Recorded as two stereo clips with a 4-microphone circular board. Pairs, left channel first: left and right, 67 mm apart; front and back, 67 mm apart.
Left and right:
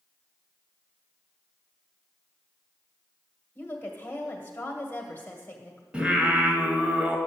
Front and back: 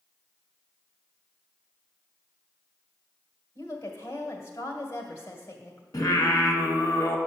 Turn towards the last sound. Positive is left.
turn(degrees=-15)